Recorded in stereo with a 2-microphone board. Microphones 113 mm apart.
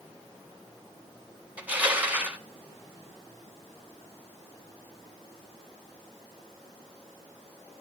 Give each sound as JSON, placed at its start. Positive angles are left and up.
{"t": 1.6, "sound": "crushing", "side_deg": -15, "distance_m": 1.4}